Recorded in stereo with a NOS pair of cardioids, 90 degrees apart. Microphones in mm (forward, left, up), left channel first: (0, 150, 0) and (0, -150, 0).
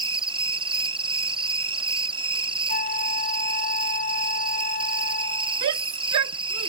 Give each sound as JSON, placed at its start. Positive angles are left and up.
{"t": 0.0, "sound": "an insect", "azimuth_deg": -15}
{"t": 2.7, "sound": "a flute", "azimuth_deg": 30}
{"t": 5.6, "sound": "a shout", "azimuth_deg": -70}